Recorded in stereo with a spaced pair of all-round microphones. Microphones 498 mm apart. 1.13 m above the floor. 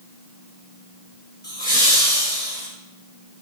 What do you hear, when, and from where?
1.4 s laughter: 20° left (ahead or behind), 1.2 m; by 2.7 s 5° left (ahead or behind), 2 m